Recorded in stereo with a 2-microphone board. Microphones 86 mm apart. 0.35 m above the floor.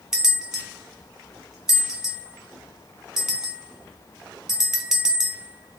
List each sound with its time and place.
0.1 s a bell: 10° right (ahead or behind), 1.5 m